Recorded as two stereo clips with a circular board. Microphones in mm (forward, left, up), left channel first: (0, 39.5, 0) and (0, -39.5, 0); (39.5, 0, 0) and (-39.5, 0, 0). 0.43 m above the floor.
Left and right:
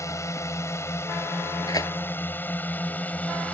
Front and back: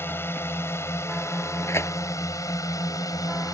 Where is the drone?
55° left; by 3.5 s 25° left.